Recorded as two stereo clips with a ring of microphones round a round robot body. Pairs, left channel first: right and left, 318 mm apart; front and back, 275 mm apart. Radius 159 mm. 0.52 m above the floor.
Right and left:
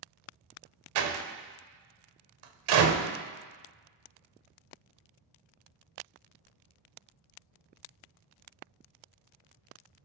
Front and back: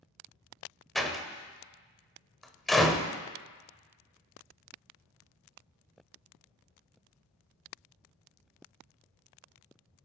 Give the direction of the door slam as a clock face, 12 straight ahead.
9 o'clock.